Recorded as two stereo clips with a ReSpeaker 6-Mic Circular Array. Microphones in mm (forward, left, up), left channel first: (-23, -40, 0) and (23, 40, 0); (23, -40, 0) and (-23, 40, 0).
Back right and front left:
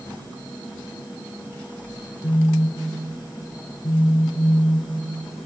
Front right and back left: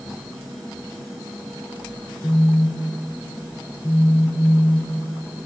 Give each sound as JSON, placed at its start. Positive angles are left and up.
{"t": 2.2, "sound": "a phone buzzing", "azimuth_deg": -135, "distance_m": 5.5}